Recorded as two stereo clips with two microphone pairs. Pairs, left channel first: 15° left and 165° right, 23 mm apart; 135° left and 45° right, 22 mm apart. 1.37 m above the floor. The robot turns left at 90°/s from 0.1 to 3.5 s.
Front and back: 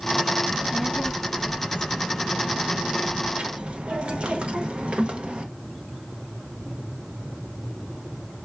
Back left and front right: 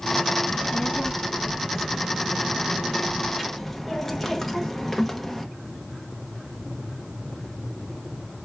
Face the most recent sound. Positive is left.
turn(degrees=-145)